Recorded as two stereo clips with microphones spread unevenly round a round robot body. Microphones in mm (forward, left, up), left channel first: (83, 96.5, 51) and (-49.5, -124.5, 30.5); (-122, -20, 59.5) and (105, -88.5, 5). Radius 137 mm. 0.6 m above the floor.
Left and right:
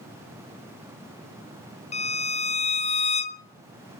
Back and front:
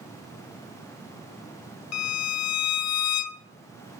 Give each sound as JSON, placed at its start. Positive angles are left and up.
{"t": 1.9, "sound": "a violin", "azimuth_deg": 125, "distance_m": 0.5}